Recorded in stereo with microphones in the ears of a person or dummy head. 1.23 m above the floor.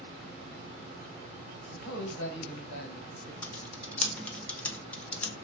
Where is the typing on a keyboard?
5° left (ahead or behind), 0.5 m.